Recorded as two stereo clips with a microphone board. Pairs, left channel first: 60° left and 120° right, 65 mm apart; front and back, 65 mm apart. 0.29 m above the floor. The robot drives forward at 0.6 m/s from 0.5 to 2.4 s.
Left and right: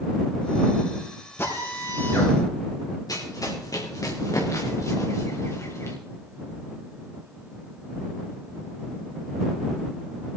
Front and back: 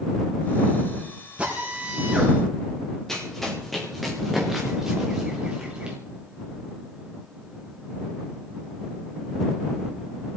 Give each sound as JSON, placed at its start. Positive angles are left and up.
{"t": 1.4, "sound": "a drill", "azimuth_deg": 110, "distance_m": 5.0}
{"t": 3.1, "sound": "running footsteps", "azimuth_deg": 85, "distance_m": 4.0}